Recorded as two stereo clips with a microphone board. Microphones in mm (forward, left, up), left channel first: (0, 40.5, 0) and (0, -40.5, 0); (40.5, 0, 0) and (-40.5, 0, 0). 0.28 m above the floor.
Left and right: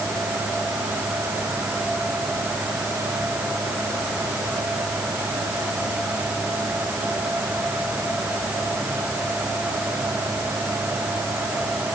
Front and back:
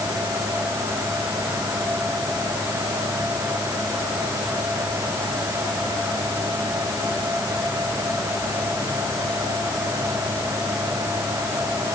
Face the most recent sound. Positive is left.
No sound to turn to.